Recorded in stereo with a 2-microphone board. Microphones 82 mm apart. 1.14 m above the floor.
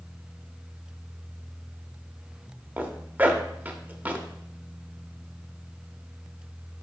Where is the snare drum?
No snare drum in this recording.